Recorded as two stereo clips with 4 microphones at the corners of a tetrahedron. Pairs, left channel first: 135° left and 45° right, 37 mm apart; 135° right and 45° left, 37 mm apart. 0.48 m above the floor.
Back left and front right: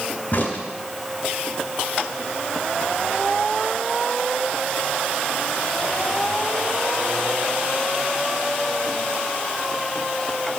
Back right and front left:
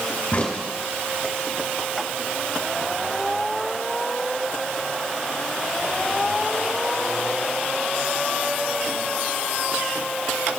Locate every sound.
0.3 s a crack: 175° left, 3.5 m